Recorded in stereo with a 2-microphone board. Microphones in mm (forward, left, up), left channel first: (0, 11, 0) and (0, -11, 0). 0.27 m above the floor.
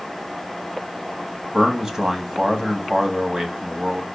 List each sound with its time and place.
1.5 s a man speaking: 20° right (ahead or behind), 1.4 m